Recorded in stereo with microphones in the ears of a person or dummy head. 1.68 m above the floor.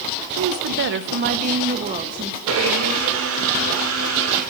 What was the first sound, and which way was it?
A woman speaking, 55° right (ahead or behind).